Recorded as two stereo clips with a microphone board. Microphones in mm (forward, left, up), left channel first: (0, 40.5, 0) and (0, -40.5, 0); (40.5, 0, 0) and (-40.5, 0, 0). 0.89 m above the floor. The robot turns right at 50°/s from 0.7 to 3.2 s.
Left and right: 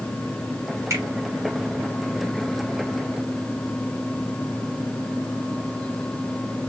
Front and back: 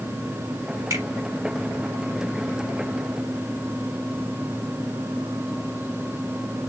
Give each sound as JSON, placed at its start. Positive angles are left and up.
{"t": 0.9, "sound": "a finger snap", "azimuth_deg": -140, "distance_m": 1.8}